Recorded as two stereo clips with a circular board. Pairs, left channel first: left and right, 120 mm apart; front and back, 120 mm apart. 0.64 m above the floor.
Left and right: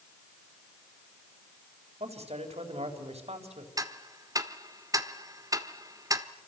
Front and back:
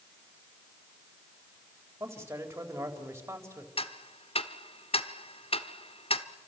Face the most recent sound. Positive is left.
turn(degrees=-30)